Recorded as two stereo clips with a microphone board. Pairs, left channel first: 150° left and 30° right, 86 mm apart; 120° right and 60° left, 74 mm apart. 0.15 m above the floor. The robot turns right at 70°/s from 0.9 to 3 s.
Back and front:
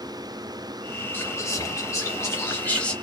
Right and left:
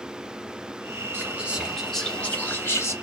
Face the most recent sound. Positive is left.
turn(degrees=-130)